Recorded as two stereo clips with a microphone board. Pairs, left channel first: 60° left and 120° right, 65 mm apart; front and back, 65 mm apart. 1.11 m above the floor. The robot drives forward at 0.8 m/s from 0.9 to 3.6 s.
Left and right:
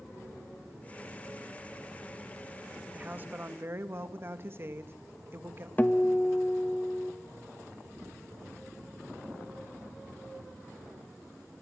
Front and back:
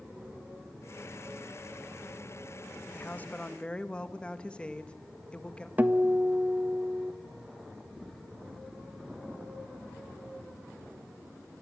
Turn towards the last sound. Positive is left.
turn(degrees=120)